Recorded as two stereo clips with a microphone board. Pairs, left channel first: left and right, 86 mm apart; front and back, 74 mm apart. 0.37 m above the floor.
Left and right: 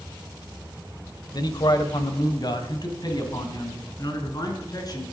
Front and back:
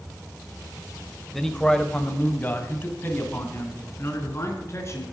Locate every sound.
1.3 s a man speaking: 85° left, 1.3 m; by 5.0 s 50° left, 4.5 m